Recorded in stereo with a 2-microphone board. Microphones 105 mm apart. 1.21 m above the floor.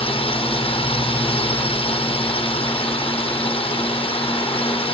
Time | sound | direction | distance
0.0 | a drone | 60° left (ahead or behind) | ?